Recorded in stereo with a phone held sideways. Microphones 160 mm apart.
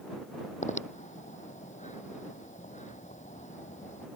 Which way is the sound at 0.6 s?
50° left (ahead or behind).